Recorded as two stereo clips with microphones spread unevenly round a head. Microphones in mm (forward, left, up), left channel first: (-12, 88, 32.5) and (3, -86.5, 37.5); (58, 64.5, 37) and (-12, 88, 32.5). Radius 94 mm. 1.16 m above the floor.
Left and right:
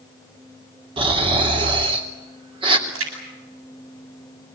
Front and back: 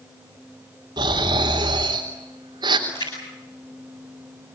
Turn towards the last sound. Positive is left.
turn(degrees=-80)